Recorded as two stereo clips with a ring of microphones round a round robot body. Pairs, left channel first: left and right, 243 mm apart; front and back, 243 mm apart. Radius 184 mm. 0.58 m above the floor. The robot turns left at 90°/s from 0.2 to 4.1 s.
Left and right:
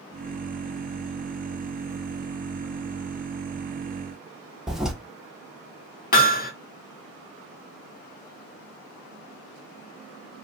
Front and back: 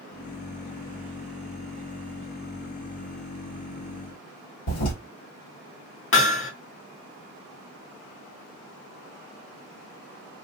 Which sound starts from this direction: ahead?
A toilet flushing, at 4.7 s.